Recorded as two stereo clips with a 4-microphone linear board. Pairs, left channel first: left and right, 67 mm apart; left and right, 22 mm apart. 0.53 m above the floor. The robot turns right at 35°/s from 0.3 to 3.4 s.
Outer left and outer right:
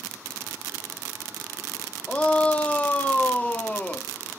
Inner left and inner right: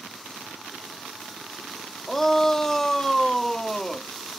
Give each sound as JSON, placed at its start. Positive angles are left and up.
{"t": 2.1, "sound": "a shout", "side_deg": 15, "distance_m": 0.7}